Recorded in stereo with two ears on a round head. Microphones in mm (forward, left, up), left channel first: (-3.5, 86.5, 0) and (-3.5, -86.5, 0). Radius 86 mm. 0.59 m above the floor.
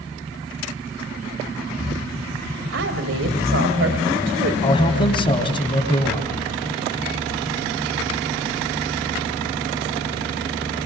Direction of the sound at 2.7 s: 70° right (ahead or behind).